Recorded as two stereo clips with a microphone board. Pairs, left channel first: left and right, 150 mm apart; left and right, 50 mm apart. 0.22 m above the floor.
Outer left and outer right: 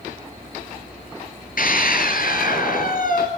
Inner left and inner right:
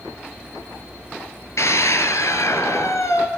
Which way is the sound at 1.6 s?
70° left (ahead or behind).